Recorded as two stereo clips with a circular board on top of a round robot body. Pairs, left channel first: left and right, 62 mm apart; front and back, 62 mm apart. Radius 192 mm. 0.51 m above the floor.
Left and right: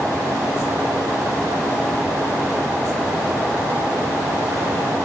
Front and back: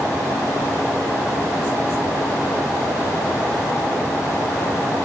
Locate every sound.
Only background noise.